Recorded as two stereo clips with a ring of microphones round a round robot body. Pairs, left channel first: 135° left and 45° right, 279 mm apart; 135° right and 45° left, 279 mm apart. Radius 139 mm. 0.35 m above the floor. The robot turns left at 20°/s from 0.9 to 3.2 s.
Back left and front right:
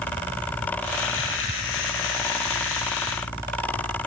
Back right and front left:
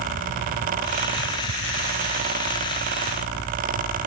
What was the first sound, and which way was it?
Only background noise.